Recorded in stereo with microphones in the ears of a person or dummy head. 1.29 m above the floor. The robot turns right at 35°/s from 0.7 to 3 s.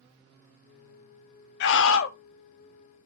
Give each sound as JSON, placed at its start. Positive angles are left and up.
{"t": 1.6, "sound": "a scream", "side_deg": 70, "distance_m": 0.5}